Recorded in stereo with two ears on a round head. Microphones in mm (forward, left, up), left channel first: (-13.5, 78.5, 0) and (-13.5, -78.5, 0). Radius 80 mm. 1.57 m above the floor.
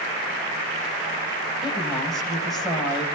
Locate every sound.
1.6 s a woman speaking: centre (ahead or behind), 7 m